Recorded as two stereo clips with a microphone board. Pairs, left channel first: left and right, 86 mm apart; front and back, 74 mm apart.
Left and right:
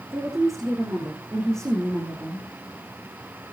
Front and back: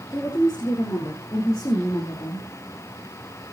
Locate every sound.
0.1 s a woman speaking: 45° right, 4 m; by 2.5 s 35° right, 3 m